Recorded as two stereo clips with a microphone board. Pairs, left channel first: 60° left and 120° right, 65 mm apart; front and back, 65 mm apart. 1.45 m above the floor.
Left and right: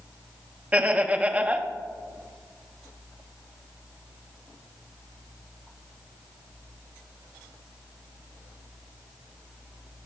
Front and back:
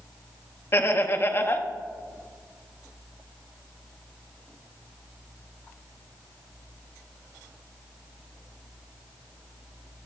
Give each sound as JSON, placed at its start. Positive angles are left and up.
{"t": 0.7, "sound": "laughter", "azimuth_deg": -55, "distance_m": 0.8}